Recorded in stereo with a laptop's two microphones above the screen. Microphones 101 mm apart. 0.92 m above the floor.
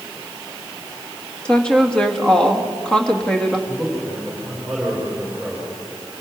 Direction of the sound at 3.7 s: 5° left (ahead or behind).